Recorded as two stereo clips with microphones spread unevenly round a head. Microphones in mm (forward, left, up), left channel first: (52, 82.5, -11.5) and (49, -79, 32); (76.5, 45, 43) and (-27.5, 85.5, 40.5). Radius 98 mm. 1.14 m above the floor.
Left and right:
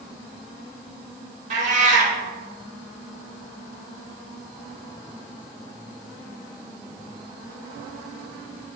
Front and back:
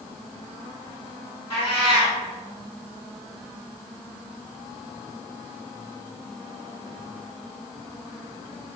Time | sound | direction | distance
1.5 | a cat meowing | 95° right | 0.7 m